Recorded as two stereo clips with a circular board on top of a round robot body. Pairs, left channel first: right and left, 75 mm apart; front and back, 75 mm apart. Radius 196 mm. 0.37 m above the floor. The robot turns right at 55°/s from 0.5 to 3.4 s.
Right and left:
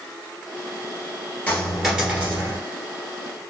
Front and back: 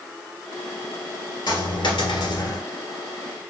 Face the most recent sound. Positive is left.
turn(degrees=90)